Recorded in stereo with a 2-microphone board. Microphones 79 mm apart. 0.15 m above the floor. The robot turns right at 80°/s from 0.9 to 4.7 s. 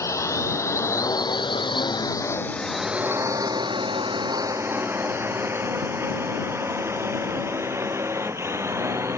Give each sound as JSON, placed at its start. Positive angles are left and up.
{"t": 0.0, "sound": "a drone", "side_deg": 40}